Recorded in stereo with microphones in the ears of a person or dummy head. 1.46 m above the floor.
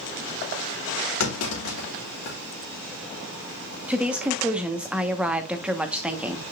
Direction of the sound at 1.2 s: 85° left.